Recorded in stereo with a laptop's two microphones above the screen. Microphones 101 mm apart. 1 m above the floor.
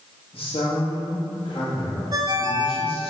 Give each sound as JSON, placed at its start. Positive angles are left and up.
{"t": 0.3, "sound": "a man speaking", "side_deg": 65, "distance_m": 1.9}
{"t": 2.1, "sound": "a ringtone", "side_deg": -45, "distance_m": 1.4}